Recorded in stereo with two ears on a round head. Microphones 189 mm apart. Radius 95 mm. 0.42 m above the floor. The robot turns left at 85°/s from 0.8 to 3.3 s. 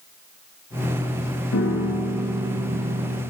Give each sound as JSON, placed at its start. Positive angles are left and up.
{"t": 1.5, "sound": "a piano", "azimuth_deg": 70, "distance_m": 1.8}